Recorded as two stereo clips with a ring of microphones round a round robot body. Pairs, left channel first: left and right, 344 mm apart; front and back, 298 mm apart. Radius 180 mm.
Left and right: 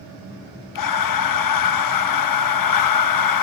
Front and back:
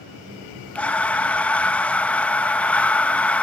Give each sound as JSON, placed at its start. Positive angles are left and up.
{"t": 0.8, "sound": "breathing", "azimuth_deg": 85, "distance_m": 1.4}